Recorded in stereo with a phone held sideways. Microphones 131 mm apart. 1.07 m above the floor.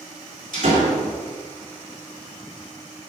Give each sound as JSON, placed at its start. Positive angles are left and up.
{"t": 0.5, "sound": "a door slam", "side_deg": -70, "distance_m": 2.5}